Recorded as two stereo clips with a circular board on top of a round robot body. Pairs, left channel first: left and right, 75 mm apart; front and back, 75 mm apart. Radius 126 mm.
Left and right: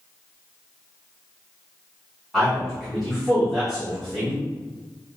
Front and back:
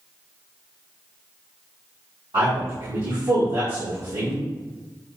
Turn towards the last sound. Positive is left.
turn(degrees=180)